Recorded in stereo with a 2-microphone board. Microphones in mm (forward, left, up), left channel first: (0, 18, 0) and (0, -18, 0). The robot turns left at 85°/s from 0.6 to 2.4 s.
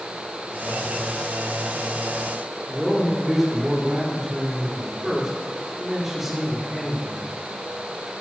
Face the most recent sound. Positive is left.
turn(degrees=-5)  # may be behind; listen again after turning